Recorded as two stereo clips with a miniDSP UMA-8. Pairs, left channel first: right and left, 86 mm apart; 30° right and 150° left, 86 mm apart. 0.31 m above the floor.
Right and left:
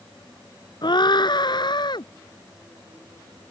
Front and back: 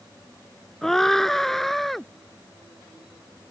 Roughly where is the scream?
Behind right.